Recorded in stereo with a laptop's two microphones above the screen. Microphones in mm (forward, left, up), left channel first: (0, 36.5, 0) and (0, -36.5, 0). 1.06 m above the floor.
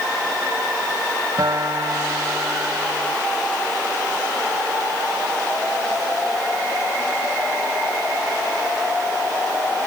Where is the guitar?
60° right (ahead or behind).